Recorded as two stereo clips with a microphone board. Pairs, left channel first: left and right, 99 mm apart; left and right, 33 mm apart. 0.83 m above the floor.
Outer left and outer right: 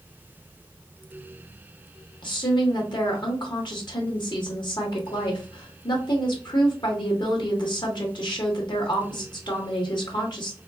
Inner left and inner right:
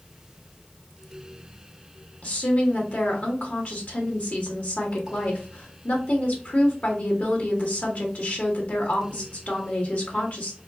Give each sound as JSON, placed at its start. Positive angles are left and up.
{"t": 2.2, "sound": "a woman speaking", "side_deg": 50, "distance_m": 1.3}